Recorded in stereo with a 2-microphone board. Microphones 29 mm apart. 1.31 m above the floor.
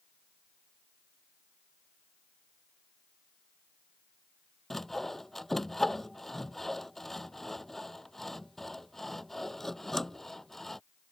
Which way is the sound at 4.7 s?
10° left (ahead or behind).